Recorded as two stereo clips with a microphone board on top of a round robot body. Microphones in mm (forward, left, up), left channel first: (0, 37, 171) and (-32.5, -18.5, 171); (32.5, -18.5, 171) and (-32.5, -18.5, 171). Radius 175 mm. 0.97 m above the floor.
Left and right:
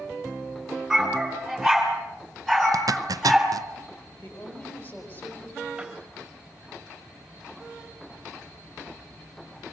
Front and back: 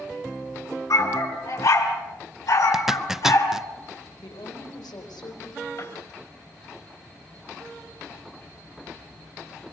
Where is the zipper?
95° right, 0.7 m.